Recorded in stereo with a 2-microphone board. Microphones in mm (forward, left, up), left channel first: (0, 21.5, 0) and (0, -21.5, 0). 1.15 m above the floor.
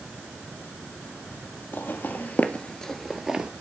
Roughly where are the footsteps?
Left.